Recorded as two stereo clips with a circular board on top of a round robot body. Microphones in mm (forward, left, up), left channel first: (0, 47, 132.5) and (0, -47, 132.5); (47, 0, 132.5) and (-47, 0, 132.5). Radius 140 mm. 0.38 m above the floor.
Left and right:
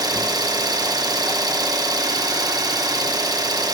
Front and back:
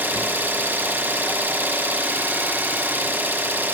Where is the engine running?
120° right, 1.5 m.